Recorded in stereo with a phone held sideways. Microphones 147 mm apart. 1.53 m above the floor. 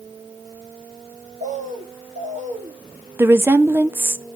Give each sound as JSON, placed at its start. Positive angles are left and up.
{"t": 1.4, "sound": "a bird", "side_deg": -60, "distance_m": 1.6}
{"t": 3.2, "sound": "a woman speaking", "side_deg": -15, "distance_m": 0.5}